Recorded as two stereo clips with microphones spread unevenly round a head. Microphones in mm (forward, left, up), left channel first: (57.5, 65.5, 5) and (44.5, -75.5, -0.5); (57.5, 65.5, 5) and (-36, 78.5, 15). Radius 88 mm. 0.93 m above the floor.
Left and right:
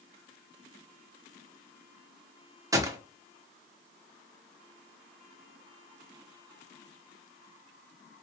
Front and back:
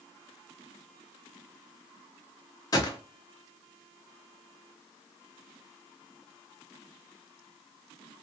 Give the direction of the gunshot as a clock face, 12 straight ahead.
1 o'clock.